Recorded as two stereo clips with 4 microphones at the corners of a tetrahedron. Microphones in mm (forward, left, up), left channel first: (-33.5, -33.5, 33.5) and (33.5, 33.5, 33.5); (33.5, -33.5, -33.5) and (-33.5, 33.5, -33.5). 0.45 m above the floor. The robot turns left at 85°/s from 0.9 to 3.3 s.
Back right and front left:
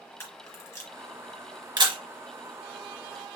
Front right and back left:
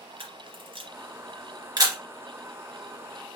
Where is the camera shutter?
160° left, 2.5 m; by 2.0 s 70° left, 2.5 m.